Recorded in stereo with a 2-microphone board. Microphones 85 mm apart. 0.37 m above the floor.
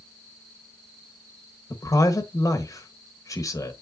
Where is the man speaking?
45° left (ahead or behind), 1.4 m.